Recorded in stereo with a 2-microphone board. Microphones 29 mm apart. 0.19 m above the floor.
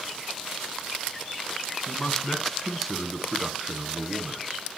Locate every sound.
1.9 s a man speaking: 25° left (ahead or behind), 1.3 m; by 4.4 s 35° right (ahead or behind), 1.6 m